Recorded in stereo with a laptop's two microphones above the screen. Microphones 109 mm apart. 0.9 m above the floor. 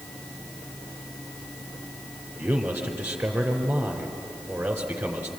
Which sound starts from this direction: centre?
A man speaking, at 2.4 s.